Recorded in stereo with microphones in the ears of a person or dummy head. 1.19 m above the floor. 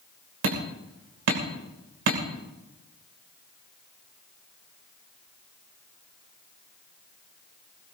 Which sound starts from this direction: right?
Hammering, at 0.4 s.